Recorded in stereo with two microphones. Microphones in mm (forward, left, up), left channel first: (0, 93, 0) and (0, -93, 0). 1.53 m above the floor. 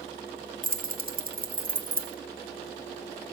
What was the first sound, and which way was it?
Keys jangling, 50° right (ahead or behind).